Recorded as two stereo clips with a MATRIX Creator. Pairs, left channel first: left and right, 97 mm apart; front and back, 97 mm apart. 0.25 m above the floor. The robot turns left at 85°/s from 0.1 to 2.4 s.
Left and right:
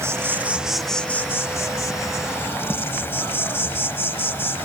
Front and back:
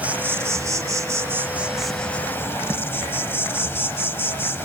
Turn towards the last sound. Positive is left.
turn(degrees=45)